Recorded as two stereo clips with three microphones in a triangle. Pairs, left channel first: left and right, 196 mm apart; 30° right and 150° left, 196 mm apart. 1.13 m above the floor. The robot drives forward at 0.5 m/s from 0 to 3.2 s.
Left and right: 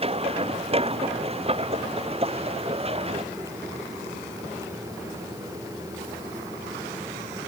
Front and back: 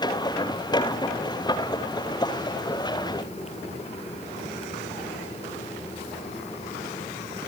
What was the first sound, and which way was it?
Only background noise.